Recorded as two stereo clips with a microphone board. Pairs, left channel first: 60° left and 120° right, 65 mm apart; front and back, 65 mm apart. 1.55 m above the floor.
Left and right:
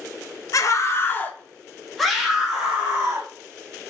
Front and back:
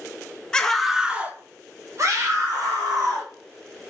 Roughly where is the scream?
Left.